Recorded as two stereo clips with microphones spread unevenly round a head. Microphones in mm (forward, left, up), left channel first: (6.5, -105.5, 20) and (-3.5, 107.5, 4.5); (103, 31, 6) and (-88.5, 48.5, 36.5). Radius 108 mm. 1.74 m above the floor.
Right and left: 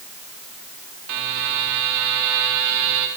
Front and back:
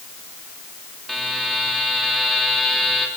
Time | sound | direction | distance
1.1 | a buzzer | 85° left | 5 m